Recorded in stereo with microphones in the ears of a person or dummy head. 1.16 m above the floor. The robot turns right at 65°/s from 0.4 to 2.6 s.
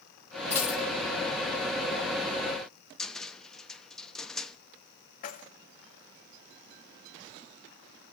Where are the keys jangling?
45° left (ahead or behind), 1.0 m.